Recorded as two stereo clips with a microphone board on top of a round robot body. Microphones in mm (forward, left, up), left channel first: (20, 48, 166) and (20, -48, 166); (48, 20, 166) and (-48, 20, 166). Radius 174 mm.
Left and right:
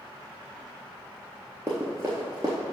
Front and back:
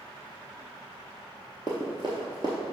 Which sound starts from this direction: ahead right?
Running footsteps, at 1.7 s.